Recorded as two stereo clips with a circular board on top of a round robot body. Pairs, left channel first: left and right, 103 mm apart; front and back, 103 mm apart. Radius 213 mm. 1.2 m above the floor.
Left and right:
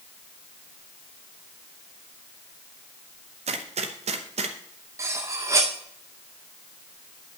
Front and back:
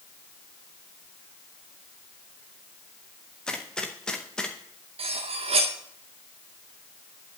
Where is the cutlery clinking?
155° right, 0.7 m.